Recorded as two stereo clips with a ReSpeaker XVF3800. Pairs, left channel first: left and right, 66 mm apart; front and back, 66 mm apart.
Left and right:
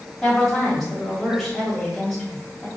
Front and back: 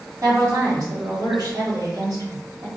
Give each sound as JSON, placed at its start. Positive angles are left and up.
{"t": 0.2, "sound": "a woman speaking", "azimuth_deg": 180, "distance_m": 1.7}